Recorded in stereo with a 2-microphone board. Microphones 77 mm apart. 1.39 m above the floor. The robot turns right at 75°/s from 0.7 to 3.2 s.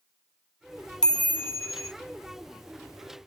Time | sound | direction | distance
1.0 | a chime | 10° left | 0.6 m